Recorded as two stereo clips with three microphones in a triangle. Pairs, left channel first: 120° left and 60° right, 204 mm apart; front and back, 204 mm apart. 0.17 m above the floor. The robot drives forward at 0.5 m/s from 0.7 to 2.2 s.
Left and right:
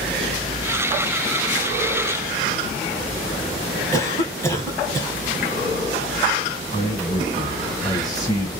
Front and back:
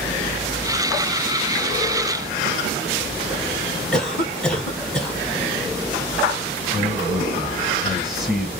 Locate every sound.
3.9 s a cough: 75° left, 1.0 m
6.7 s a man speaking: 95° left, 1.3 m